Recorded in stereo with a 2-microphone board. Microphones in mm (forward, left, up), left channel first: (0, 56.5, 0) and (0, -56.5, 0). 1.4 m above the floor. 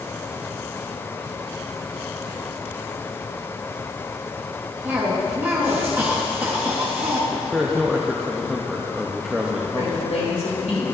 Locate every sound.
4.8 s a cough: 20° right (ahead or behind), 1.2 m
7.3 s a man speaking: 5° right (ahead or behind), 0.7 m
9.8 s a woman speaking: 80° left, 2.5 m